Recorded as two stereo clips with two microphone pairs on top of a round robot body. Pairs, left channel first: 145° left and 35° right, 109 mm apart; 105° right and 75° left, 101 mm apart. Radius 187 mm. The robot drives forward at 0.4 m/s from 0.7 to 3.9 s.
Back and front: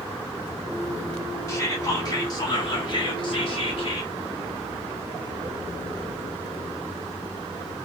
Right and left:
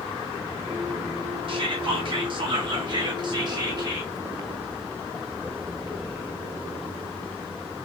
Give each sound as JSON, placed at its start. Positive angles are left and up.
{"t": 1.5, "sound": "whispering", "azimuth_deg": 85, "distance_m": 1.8}